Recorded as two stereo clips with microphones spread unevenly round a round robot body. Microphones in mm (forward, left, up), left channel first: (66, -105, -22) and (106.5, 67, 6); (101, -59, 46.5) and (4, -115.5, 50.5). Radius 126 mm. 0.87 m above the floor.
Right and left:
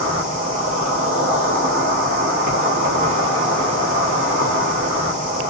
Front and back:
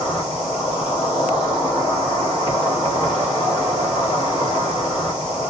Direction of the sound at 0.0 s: 90° left.